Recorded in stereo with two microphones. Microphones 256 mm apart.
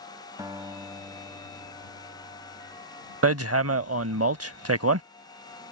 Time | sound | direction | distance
0.4 | a guitar | 15° right (ahead or behind) | ?
3.2 | hammering | 65° right (ahead or behind) | ?